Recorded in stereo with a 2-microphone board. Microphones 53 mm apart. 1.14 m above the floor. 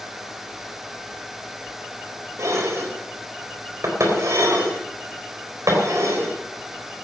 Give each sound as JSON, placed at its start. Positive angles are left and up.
{"t": 2.4, "sound": "dishes clattering", "side_deg": -70, "distance_m": 4.0}